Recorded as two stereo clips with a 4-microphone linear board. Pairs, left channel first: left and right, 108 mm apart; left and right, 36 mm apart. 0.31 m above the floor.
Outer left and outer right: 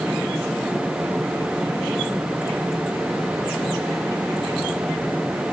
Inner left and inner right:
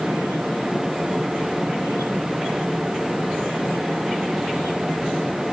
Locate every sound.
Only background noise.